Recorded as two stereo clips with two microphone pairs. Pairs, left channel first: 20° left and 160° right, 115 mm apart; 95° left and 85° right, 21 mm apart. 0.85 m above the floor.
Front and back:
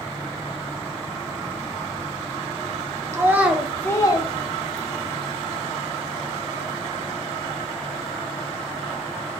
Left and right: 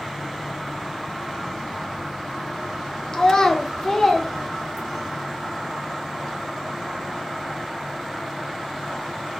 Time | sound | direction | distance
3.1 | a child speaking | 140° left | 0.6 m